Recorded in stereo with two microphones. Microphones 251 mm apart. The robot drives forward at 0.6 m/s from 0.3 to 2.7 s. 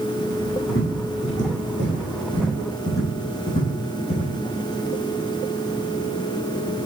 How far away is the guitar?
I don't hear a guitar.